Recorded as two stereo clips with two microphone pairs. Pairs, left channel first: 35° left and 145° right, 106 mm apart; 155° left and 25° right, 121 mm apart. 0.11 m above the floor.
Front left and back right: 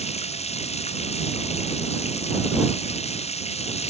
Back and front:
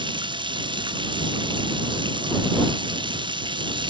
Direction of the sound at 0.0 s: 25° left.